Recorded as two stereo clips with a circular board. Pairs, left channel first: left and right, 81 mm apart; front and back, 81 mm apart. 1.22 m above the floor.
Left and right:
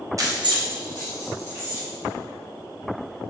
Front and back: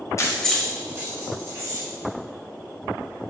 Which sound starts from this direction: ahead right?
Keys jangling, at 0.2 s.